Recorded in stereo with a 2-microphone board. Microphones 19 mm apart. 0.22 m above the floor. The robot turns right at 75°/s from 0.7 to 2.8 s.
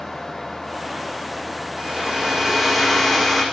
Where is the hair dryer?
70° right, 5 m; by 3.5 s 5° left, 5 m.